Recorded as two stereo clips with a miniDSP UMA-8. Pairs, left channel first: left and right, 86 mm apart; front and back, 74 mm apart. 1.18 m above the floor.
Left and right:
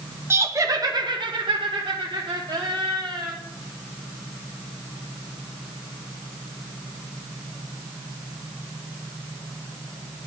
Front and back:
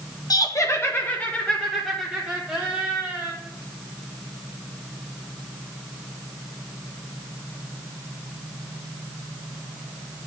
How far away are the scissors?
I don't hear scissors.